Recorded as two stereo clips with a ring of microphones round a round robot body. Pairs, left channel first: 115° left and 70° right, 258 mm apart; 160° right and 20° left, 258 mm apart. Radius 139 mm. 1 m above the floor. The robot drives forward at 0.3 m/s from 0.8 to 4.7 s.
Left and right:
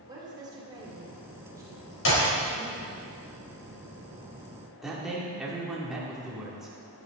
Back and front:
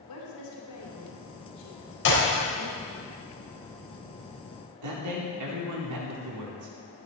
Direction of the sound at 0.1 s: 145° right.